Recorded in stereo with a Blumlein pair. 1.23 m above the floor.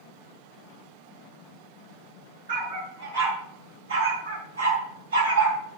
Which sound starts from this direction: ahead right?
A dog barking, at 2.5 s.